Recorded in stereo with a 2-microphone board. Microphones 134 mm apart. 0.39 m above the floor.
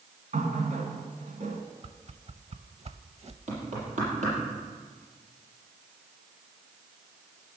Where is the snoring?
No snoring in this recording.